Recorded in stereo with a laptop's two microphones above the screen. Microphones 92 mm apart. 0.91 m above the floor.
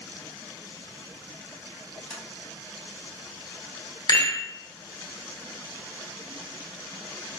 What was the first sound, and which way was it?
Tapping, 5° left (ahead or behind).